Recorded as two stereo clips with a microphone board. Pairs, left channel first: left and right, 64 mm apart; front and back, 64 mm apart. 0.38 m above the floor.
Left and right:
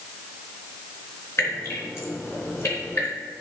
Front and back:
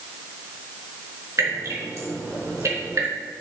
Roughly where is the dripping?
Behind left.